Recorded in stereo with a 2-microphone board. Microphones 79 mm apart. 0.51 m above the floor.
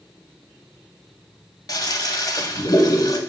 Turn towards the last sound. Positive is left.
turn(degrees=50)  # may be behind; listen again after turning